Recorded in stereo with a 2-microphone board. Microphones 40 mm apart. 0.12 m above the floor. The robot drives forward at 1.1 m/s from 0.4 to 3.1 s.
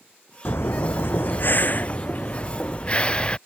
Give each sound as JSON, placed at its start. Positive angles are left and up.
{"t": 0.5, "sound": "breathing", "side_deg": 80}